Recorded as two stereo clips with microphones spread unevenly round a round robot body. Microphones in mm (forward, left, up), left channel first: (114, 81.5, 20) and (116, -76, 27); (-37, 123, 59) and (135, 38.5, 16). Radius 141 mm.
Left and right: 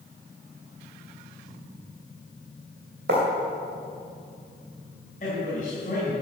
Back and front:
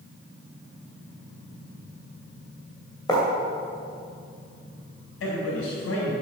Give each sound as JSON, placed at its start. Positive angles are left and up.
{"t": 3.1, "sound": "writing", "azimuth_deg": -130, "distance_m": 2.0}
{"t": 5.2, "sound": "a man speaking", "azimuth_deg": 155, "distance_m": 4.0}